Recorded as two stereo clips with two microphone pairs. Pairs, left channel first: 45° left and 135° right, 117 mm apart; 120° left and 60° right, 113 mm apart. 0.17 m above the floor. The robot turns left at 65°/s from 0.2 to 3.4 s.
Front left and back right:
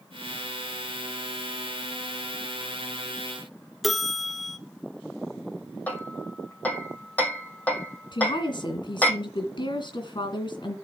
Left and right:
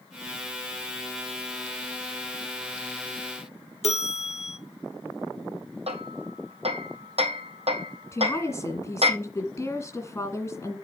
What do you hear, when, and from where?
3.8 s a bell: 135° left, 0.5 m
5.9 s hammering: 35° right, 2 m
8.1 s a woman speaking: 60° left, 2 m